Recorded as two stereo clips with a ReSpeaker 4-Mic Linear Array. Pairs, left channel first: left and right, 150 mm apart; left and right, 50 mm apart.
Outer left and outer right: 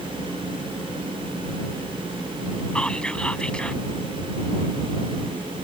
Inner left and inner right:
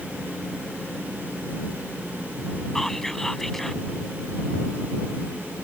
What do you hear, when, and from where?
2.8 s whispering: 5° left (ahead or behind)